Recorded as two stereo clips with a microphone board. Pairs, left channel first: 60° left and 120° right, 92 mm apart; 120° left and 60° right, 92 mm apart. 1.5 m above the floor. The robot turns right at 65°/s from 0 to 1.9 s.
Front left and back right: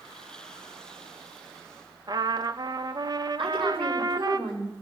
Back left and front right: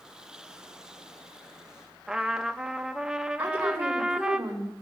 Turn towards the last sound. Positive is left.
turn(degrees=-130)